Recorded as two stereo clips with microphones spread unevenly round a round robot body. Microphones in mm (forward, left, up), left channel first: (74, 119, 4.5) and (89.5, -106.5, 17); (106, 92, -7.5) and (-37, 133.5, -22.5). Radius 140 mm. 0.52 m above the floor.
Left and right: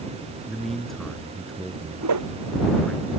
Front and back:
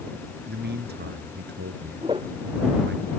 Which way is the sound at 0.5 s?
175° right.